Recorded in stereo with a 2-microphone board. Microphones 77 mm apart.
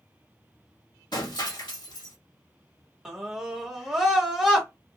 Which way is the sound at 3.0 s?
5° right (ahead or behind).